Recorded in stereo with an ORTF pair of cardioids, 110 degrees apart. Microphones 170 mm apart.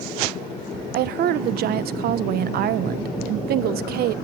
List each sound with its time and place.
0.9 s a woman speaking: 70° right, 1.1 m